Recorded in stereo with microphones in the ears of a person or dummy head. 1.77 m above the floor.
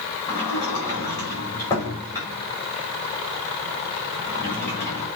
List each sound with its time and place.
0.3 s a sliding door: 20° left (ahead or behind), 4.5 m